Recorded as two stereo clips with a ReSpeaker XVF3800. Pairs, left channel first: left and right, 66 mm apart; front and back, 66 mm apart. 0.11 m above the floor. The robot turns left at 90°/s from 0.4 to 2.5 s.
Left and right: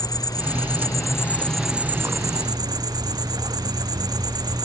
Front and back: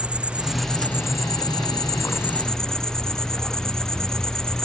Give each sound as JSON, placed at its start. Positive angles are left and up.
{"t": 0.0, "sound": "an insect", "azimuth_deg": 105}